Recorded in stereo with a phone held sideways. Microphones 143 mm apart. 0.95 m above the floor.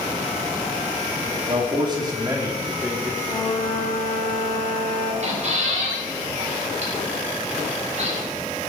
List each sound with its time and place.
1.5 s a man speaking: 40° right (ahead or behind), 2.5 m; by 3.1 s 10° right (ahead or behind), 3.5 m
3.2 s a flute: 40° left (ahead or behind), 2.5 m
5.2 s a squeak: 55° right (ahead or behind), 4 m